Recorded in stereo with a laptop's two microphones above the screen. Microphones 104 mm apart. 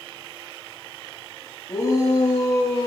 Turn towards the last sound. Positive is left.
turn(degrees=65)  # may be behind; listen again after turning